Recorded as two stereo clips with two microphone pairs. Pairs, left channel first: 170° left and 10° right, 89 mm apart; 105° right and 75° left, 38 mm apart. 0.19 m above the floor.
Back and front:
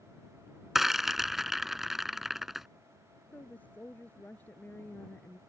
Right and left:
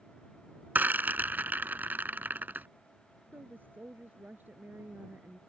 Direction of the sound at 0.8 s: 75° left.